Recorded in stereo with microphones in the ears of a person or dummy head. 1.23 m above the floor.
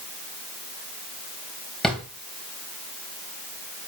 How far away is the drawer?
About 2.5 m.